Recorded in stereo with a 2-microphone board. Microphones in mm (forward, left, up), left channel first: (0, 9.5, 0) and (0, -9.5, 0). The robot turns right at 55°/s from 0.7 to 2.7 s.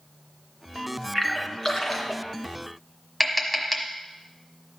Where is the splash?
Centre (ahead or behind), 2.5 m; by 2.2 s 55° left (ahead or behind), 2.5 m.